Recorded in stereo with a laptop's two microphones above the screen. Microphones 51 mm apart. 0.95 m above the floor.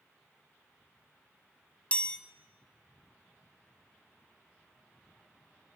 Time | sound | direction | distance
1.9 | a chime | 25° left (ahead or behind) | 1.1 m